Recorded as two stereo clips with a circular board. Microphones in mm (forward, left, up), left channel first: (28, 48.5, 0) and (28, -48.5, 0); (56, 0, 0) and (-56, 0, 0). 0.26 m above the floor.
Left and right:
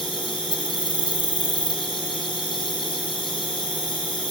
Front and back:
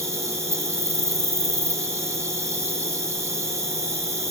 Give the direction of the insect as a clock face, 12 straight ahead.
8 o'clock.